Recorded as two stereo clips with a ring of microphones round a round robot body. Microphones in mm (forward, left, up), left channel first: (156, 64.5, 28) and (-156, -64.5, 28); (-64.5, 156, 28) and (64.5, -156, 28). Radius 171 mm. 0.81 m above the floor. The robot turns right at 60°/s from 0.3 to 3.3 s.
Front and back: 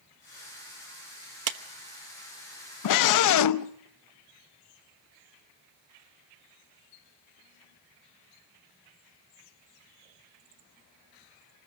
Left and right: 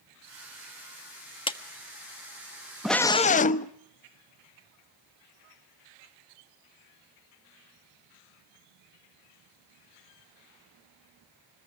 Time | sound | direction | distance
1.5 | a clap | 175° right | 1.3 m
2.8 | a scream | 20° left | 0.8 m